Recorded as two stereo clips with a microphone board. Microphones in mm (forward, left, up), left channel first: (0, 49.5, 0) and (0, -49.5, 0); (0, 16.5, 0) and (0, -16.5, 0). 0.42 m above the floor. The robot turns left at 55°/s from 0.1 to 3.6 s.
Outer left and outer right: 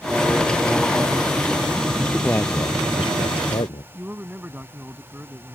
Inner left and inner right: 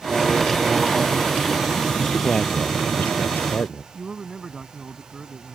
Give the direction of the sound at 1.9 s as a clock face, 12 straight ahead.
6 o'clock.